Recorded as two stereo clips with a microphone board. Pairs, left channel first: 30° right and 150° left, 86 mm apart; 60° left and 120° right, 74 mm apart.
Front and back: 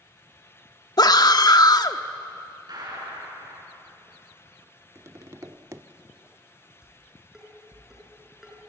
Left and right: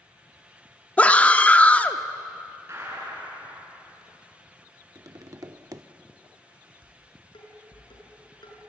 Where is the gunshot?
175° right, 7 m.